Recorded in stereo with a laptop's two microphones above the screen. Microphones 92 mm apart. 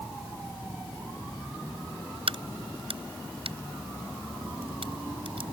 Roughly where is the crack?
Right.